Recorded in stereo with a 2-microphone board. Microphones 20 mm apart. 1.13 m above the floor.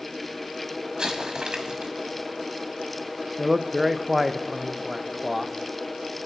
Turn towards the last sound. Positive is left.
turn(degrees=-10)  # may be behind; listen again after turning